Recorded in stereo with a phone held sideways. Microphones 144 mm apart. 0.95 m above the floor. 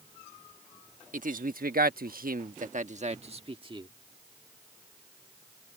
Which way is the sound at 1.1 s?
60° right (ahead or behind).